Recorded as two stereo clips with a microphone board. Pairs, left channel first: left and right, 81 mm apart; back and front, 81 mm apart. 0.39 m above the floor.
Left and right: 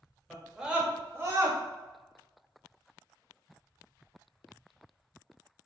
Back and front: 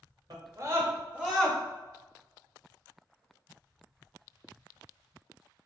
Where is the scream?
5° right, 1.2 m; by 1.6 s 100° right, 1.0 m.